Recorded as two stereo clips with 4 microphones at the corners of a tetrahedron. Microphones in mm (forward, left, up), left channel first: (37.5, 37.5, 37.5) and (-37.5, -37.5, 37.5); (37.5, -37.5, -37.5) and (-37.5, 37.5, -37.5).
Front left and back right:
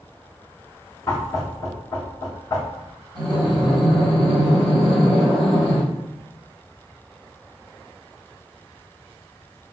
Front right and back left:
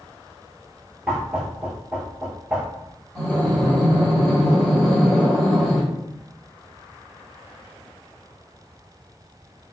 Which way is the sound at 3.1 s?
35° left.